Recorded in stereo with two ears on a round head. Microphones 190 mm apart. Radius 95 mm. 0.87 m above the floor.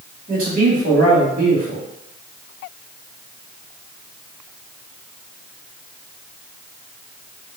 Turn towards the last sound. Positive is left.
turn(degrees=-45)  # may be behind; listen again after turning